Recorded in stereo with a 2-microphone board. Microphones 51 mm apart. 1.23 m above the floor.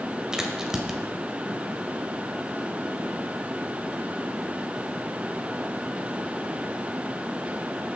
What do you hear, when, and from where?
0.3 s a crack: 10° right (ahead or behind), 1.9 m